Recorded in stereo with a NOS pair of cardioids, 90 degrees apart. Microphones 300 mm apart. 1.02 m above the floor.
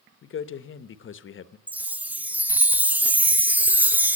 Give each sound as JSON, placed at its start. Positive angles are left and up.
{"t": 0.2, "sound": "a man speaking", "azimuth_deg": 45, "distance_m": 1.0}
{"t": 1.7, "sound": "a chime", "azimuth_deg": -5, "distance_m": 0.6}